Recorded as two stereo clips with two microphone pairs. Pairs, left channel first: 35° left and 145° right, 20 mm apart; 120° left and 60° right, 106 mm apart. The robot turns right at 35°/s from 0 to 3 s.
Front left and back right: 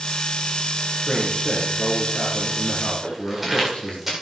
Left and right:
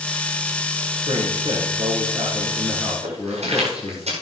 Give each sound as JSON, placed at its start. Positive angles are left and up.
{"t": 1.1, "sound": "a man speaking", "azimuth_deg": -45, "distance_m": 4.0}
{"t": 3.0, "sound": "footsteps", "azimuth_deg": -60, "distance_m": 8.0}